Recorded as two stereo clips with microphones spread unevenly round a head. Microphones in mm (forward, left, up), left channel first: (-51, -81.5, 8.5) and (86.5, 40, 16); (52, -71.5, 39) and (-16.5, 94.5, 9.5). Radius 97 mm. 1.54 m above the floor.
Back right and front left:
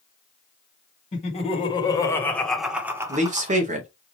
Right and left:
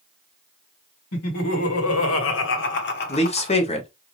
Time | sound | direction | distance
1.1 | laughter | 85° right | 1.6 m
3.1 | a man speaking | 10° right | 1.1 m